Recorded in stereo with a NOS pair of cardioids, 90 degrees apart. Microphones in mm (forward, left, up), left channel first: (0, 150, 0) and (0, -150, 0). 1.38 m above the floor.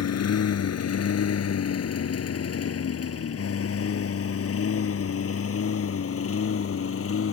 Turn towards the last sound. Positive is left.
turn(degrees=45)